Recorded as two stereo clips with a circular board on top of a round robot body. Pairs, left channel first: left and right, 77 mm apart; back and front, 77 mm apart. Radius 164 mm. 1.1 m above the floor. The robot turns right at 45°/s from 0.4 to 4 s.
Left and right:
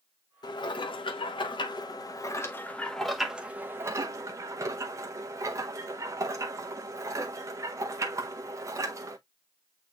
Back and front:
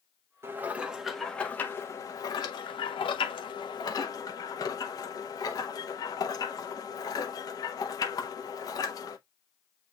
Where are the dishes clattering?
60° left, 0.7 m; by 9.2 s 140° right, 0.7 m.